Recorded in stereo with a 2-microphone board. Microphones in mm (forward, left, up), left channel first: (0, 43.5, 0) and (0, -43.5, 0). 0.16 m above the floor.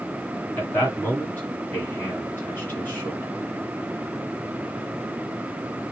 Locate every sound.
0.6 s a man speaking: 20° left (ahead or behind), 1.5 m